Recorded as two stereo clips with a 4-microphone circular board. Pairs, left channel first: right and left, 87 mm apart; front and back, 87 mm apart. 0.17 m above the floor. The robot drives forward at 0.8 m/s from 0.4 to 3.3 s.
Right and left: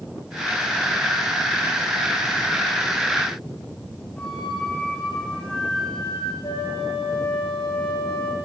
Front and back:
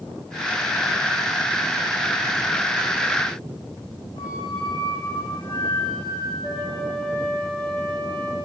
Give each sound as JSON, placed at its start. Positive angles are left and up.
{"t": 4.2, "sound": "a flute", "azimuth_deg": -15, "distance_m": 7.0}
{"t": 6.4, "sound": "a flute", "azimuth_deg": -80, "distance_m": 4.5}